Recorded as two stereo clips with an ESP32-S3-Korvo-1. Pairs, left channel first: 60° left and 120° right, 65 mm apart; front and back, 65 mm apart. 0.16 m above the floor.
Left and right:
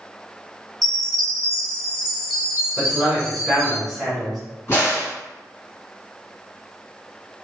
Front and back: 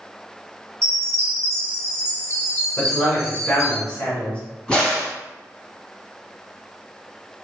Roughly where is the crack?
Left.